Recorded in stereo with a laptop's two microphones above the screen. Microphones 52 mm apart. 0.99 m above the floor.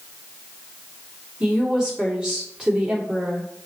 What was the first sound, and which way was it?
A woman speaking, 15° right (ahead or behind).